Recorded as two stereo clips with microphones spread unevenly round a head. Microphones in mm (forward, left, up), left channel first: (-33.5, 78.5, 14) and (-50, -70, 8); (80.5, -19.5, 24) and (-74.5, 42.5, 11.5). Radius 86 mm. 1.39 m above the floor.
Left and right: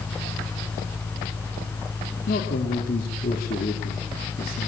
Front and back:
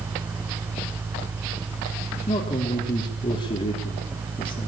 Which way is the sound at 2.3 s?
40° left.